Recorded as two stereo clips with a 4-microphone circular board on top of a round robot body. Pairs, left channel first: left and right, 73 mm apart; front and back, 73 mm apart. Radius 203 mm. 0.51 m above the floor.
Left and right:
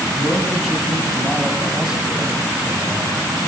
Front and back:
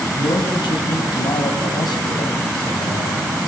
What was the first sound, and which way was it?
A man speaking, 5° left.